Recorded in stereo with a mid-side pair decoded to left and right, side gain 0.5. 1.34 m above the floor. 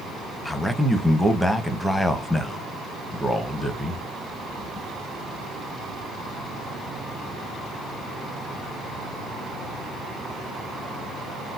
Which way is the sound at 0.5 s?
5° left.